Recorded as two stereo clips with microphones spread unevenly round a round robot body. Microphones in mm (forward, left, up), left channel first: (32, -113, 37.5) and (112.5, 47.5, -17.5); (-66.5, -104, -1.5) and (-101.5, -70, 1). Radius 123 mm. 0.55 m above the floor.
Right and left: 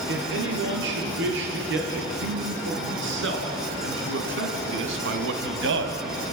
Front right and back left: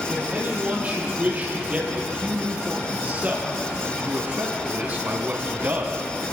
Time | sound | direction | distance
0.1 | a man speaking | 50° left | 10 m